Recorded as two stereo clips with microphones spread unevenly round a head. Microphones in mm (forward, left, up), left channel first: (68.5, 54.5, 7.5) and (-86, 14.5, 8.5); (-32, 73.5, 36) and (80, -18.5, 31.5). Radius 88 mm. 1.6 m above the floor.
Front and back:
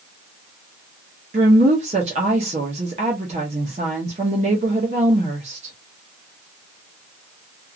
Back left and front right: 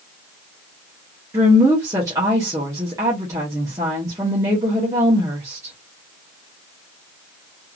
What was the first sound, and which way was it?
A woman speaking, 115° right.